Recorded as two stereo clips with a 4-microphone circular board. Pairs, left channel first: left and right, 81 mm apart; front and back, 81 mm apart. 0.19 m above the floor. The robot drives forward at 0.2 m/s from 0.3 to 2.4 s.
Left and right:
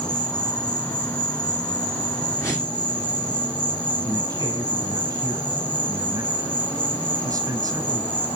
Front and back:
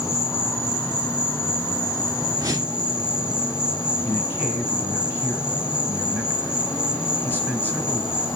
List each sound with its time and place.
0.0 s an insect: 65° left, 3 m; by 8.4 s 70° left, 3 m
2.4 s a whoosh: 140° left, 2.5 m
4.0 s a man speaking: 120° right, 1.8 m